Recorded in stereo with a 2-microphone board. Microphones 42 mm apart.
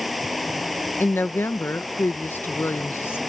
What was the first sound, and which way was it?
Running water, centre (ahead or behind).